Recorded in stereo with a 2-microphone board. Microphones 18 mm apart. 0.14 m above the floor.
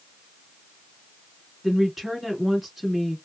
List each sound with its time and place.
1.6 s a woman speaking: 15° right (ahead or behind), 1.3 m